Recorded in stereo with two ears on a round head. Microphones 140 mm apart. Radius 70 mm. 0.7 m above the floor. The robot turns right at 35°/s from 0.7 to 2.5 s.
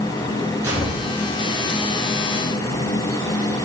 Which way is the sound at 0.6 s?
20° right (ahead or behind).